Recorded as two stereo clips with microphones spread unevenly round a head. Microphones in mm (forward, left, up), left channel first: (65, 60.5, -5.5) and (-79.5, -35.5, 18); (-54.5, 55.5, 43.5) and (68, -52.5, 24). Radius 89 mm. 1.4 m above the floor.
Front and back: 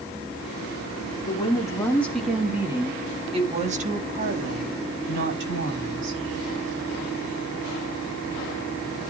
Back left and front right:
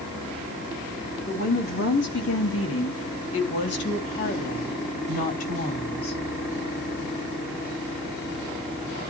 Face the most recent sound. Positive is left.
turn(degrees=-170)